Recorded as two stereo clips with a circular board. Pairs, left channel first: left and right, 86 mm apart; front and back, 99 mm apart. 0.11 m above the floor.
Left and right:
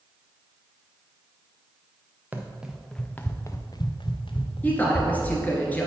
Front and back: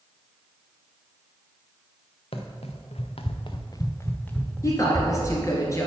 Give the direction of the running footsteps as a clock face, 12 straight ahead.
1 o'clock.